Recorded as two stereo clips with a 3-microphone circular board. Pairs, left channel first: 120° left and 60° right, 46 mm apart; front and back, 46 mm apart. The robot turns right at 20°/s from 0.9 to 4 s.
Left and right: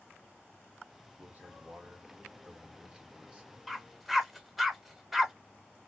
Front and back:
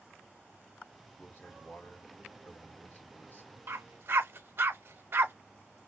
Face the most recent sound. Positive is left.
turn(degrees=-145)